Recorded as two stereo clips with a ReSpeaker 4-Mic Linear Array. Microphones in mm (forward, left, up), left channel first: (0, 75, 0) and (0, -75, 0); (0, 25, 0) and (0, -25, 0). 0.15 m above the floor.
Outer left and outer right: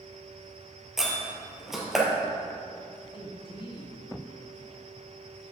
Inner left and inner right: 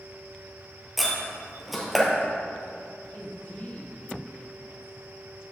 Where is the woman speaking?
40° left (ahead or behind), 1.7 m.